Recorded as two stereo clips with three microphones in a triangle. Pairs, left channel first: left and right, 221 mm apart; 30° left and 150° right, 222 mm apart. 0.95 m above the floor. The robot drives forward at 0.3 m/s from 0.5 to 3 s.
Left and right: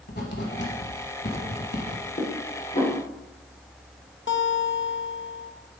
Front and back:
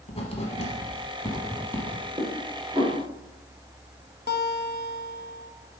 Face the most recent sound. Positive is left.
turn(degrees=65)